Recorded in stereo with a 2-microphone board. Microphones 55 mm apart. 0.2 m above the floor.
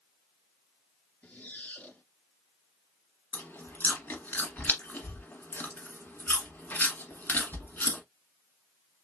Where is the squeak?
25° left (ahead or behind), 1.8 m.